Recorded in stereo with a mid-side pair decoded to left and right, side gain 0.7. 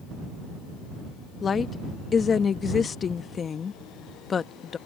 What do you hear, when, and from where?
1.4 s a woman speaking: 30° left